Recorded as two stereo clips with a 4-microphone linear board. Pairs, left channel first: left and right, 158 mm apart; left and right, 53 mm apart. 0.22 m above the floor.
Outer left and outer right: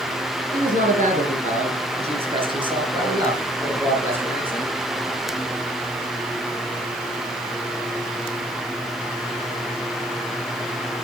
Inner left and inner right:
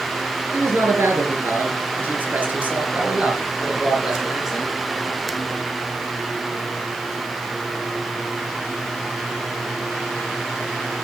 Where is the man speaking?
60° right (ahead or behind), 3 m; by 4.7 s 10° right (ahead or behind), 4 m.